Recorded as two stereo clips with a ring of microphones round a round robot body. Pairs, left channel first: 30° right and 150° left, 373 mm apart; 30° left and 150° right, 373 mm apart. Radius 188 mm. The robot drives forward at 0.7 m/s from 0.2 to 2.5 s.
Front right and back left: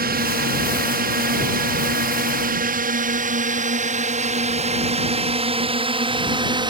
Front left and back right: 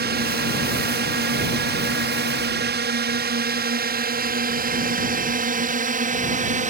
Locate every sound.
0.0 s a drone: 175° right; by 6.7 s 155° right